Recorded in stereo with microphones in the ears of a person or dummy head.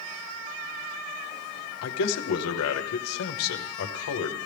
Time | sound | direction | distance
1.8 | a man speaking | 75° left (ahead or behind) | 0.9 m